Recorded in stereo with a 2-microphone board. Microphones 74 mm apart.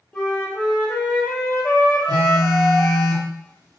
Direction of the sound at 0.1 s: 15° left (ahead or behind).